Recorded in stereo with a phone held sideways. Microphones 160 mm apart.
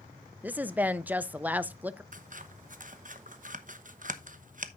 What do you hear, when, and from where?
0.4 s a woman speaking: 10° right (ahead or behind), 0.6 m
2.1 s scissors: 55° right (ahead or behind), 0.9 m